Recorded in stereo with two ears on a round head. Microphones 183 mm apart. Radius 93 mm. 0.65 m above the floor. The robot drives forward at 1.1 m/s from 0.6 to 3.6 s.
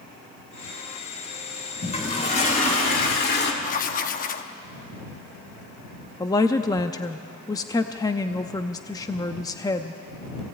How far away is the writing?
About 1.0 m.